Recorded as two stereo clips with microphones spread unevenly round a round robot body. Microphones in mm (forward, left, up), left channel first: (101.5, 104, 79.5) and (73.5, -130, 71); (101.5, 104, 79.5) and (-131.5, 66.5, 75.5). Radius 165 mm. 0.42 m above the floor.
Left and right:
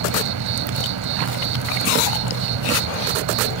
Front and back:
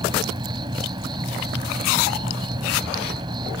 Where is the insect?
95° right.